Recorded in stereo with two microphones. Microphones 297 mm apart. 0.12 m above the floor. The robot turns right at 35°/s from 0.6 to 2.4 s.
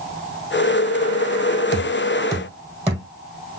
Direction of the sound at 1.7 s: 10° left (ahead or behind).